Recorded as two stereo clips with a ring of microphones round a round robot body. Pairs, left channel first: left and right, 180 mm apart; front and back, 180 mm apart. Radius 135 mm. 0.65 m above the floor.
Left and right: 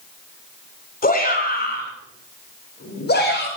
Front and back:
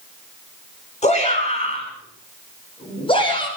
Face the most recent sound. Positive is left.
turn(degrees=60)